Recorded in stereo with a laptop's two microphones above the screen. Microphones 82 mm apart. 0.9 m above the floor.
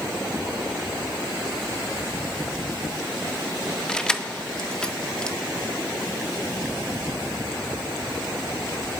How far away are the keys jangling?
About 0.6 m.